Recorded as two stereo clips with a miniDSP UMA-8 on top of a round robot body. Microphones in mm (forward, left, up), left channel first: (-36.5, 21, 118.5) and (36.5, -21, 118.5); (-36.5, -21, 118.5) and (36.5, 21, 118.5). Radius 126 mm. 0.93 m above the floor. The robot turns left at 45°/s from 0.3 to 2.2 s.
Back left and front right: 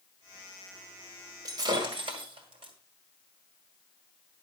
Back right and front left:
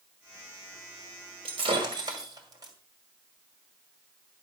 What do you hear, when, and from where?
1.4 s breaking glass: 20° left, 2.0 m; by 2.7 s 15° right, 2.0 m